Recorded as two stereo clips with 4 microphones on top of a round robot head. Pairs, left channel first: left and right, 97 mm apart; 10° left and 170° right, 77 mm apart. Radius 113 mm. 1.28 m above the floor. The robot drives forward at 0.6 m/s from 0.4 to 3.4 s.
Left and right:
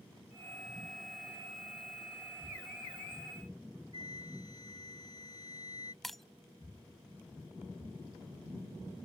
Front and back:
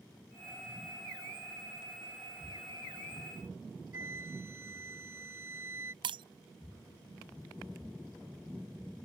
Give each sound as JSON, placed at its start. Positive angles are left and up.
{"t": 3.9, "sound": "a flute", "azimuth_deg": 145}
{"t": 6.0, "sound": "breaking glass", "azimuth_deg": 180}